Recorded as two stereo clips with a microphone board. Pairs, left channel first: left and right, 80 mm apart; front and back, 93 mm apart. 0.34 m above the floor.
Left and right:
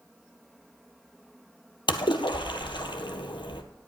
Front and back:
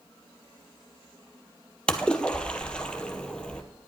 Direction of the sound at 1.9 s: 80° left.